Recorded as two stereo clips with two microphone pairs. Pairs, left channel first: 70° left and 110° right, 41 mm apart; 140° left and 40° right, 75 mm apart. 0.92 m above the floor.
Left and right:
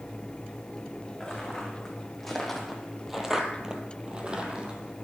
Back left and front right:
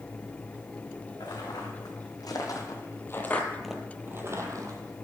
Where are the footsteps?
150° left, 3 m; by 5.0 s 45° right, 1.7 m.